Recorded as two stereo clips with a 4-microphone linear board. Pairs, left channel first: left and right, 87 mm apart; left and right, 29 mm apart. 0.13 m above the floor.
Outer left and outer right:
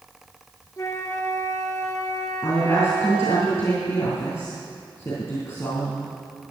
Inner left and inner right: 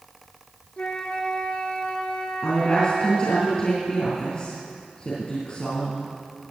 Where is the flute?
35° left (ahead or behind), 1.4 m.